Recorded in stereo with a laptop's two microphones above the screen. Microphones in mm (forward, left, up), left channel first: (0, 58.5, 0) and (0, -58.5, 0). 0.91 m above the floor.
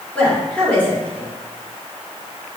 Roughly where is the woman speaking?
Centre.